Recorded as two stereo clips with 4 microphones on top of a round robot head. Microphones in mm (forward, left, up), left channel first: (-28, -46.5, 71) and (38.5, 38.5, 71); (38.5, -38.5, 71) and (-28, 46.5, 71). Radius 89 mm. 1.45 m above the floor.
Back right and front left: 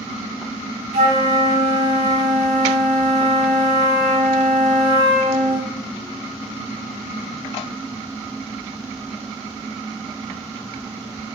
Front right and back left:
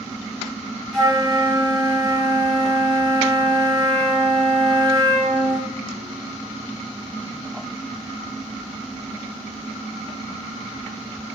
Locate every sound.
0.9 s a flute: 35° left, 5 m